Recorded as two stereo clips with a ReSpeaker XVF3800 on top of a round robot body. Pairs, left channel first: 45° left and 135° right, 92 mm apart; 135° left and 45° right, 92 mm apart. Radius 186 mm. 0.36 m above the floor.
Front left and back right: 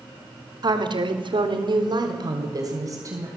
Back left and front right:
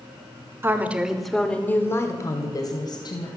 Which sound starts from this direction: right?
A woman speaking, at 0.6 s.